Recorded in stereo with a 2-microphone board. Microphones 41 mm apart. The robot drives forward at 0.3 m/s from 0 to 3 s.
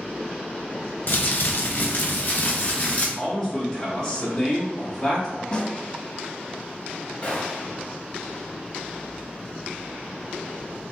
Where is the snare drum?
25° left (ahead or behind), 0.6 m.